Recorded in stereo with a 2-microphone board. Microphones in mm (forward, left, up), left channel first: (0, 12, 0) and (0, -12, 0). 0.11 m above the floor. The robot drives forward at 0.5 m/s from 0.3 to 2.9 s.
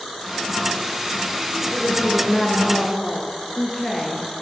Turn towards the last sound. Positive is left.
turn(degrees=0)  # may be behind; listen again after turning